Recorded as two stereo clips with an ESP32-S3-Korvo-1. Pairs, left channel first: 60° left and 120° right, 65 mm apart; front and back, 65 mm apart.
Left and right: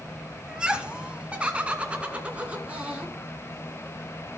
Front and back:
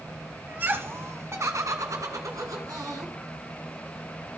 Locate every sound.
0.5 s laughter: straight behind, 1.3 m; by 3.1 s 170° left, 3.5 m